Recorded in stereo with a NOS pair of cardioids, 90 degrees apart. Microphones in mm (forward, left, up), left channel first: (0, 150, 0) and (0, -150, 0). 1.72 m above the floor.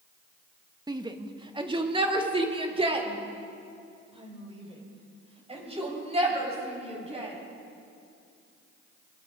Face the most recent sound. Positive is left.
turn(degrees=-20)